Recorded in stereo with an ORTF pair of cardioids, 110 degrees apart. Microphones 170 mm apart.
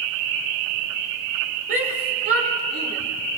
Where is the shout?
65° right, 5.5 m; by 3.0 s 70° right, 5 m.